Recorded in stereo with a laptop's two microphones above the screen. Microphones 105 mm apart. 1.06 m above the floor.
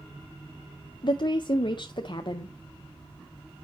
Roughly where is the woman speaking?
Left.